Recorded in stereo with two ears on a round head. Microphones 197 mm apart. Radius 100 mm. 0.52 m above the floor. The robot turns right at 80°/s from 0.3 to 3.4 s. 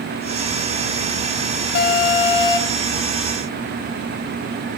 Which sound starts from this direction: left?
An alarm, at 1.8 s.